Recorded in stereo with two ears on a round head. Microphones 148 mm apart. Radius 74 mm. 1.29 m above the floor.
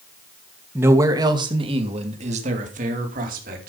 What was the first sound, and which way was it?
A man speaking, 10° right (ahead or behind).